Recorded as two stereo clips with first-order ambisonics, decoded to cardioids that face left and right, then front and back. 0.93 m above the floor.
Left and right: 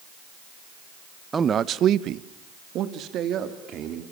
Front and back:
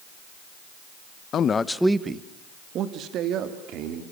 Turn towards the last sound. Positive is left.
turn(degrees=-140)